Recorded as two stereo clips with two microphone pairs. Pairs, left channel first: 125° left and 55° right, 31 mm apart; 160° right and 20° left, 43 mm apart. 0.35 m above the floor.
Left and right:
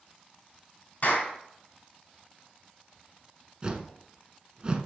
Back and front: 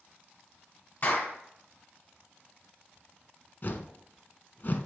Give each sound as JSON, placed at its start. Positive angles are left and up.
{"t": 1.0, "sound": "a clap", "azimuth_deg": 155, "distance_m": 2.5}
{"t": 3.6, "sound": "a whoosh", "azimuth_deg": -120, "distance_m": 0.7}